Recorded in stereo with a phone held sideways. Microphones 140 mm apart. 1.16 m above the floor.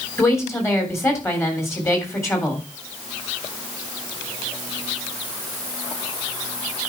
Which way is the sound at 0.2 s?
20° left (ahead or behind).